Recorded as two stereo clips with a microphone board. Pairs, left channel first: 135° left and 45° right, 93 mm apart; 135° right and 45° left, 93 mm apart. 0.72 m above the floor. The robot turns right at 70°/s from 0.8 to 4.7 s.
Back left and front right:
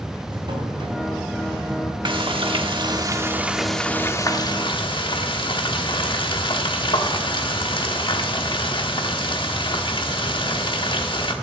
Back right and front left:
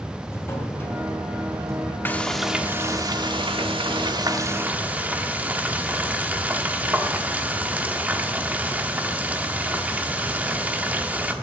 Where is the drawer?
75° right, 2.5 m; by 1.9 s 10° left, 2.5 m.